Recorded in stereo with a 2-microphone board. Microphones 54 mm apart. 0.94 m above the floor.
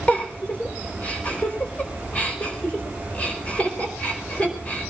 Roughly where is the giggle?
Left.